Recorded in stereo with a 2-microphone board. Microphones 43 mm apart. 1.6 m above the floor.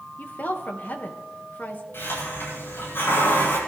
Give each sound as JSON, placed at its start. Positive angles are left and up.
{"t": 0.2, "sound": "a woman speaking", "side_deg": 45, "distance_m": 1.9}
{"t": 1.9, "sound": "a hiss", "side_deg": 60, "distance_m": 9.5}